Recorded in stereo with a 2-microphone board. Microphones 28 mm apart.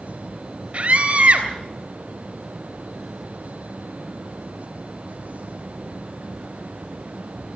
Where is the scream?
40° right (ahead or behind), 3 m.